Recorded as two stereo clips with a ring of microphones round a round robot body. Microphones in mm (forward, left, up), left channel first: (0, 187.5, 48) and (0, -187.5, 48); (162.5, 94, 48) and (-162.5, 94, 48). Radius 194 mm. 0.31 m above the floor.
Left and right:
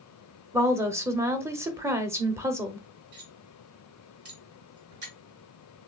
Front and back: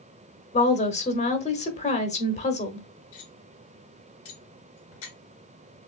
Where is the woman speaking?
20° right, 1.1 m.